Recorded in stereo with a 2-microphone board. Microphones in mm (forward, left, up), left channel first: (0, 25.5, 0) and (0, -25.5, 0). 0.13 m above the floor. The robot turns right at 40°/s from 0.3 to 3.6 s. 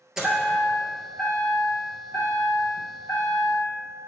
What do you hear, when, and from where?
0.2 s a chime: 15° right, 1.4 m; by 3.6 s 120° left, 1.4 m